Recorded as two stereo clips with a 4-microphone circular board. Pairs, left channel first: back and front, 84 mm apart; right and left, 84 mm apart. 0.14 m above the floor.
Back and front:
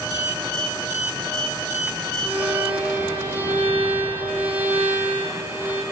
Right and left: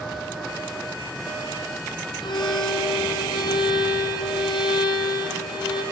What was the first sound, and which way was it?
A violin, 70° right.